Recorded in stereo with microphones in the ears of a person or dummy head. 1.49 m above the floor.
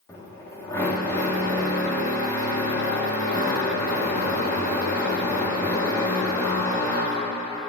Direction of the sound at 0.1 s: 15° left (ahead or behind).